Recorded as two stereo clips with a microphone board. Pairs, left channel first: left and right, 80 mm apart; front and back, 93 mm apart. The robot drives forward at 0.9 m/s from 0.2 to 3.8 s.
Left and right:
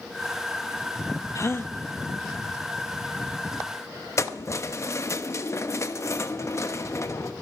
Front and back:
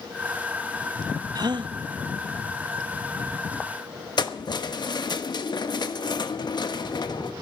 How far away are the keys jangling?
About 1.0 m.